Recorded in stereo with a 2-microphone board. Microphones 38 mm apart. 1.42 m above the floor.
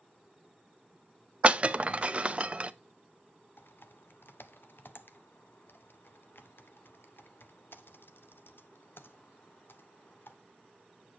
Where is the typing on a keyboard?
70° left (ahead or behind), 0.8 m.